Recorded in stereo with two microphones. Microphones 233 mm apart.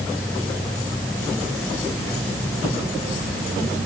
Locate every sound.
Only background noise.